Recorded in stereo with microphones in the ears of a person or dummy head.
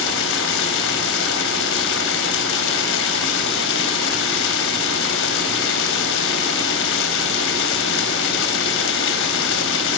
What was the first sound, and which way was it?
Running water, 70° left (ahead or behind).